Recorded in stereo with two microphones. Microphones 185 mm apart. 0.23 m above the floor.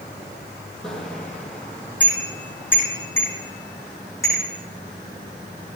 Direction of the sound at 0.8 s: 5° left (ahead or behind).